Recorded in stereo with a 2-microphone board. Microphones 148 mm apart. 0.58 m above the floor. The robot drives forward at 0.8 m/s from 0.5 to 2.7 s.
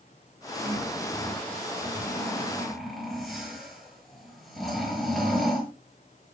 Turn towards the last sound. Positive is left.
turn(degrees=0)  # may be behind; listen again after turning